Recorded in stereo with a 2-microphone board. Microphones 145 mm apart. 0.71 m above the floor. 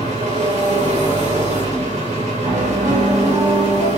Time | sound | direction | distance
0.0 | an engine running | 55° right (ahead or behind) | 2.5 m
2.4 | a piano | 80° right | 4 m